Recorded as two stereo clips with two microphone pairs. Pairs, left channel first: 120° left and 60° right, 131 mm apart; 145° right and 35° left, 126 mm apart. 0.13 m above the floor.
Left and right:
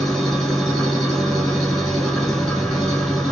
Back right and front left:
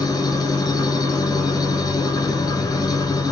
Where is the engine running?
160° right, 1.5 m.